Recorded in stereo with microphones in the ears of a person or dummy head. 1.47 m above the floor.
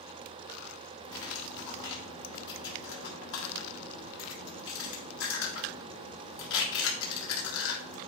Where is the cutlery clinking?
65° left (ahead or behind), 1.7 m.